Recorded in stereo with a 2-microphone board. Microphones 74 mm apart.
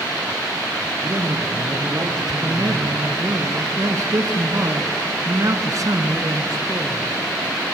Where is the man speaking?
50° right (ahead or behind), 1.6 m.